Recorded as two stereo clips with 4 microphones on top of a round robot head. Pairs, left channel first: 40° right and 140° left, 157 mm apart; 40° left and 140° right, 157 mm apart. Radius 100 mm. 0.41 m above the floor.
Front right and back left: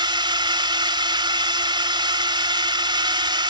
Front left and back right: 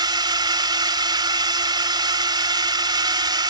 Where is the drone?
Straight behind.